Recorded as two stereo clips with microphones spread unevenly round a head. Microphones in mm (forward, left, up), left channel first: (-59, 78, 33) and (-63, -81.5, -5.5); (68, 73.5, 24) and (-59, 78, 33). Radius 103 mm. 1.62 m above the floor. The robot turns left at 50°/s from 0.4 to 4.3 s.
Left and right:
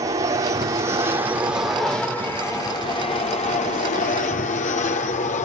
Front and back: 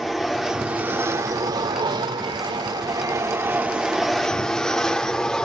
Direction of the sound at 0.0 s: 90° right.